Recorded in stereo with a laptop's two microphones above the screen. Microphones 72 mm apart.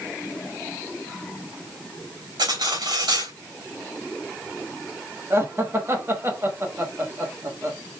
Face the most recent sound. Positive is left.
turn(degrees=-35)  # may be behind; listen again after turning